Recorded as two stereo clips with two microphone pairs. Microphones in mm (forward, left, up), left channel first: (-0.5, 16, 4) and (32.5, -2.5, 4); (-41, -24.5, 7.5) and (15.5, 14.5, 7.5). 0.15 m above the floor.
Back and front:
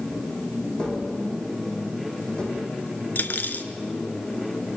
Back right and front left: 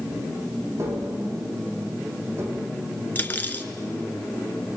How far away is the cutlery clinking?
About 1.1 m.